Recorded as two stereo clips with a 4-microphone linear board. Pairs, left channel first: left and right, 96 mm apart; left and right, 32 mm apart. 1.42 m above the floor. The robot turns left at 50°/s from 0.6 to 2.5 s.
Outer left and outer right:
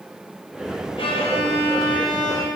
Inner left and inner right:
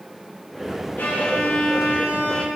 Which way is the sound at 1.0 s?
110° left.